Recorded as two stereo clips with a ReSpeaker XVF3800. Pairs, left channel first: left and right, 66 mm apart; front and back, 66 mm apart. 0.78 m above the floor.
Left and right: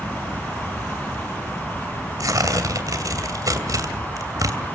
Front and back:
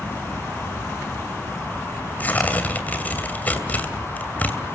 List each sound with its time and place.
2.2 s tearing paper: 65° right, 2.5 m